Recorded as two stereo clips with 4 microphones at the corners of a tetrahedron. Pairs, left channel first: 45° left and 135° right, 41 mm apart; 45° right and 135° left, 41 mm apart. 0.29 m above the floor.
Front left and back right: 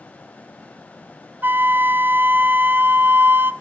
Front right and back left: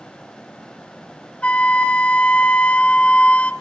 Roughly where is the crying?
No crying in this recording.